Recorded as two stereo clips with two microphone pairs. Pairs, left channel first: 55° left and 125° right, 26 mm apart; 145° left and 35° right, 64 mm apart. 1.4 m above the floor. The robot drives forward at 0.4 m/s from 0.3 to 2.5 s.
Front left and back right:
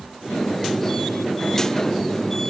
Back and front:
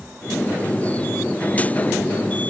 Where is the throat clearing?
No throat clearing in this recording.